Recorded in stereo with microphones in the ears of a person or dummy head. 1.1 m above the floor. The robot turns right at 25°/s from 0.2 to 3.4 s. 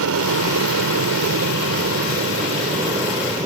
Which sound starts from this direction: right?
An aircraft, at 0.0 s.